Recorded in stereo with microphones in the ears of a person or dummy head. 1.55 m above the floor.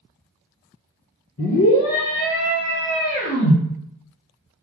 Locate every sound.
1.4 s a scream: 65° left (ahead or behind), 1.3 m; by 3.6 s 60° left (ahead or behind), 2.5 m